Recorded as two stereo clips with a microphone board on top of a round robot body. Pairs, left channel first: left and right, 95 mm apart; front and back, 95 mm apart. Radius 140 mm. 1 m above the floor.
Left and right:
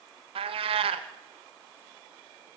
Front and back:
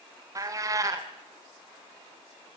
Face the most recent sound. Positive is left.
turn(degrees=-120)